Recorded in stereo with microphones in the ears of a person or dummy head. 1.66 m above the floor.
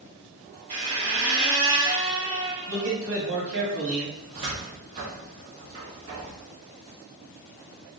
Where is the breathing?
No breathing in this recording.